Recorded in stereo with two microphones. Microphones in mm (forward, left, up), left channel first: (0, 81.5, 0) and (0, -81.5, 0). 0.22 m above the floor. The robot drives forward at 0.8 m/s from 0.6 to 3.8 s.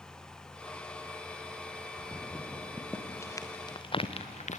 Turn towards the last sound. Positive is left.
turn(degrees=50)  # may be behind; listen again after turning